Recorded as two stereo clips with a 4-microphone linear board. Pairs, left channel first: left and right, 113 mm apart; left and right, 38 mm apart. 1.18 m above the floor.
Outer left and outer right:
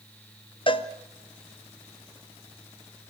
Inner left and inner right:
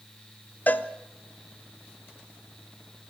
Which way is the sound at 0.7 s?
50° left (ahead or behind).